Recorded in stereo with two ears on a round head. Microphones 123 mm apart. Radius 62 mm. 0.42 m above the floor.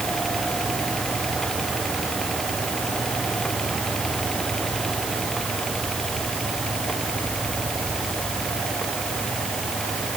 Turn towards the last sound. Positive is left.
No sound to turn to.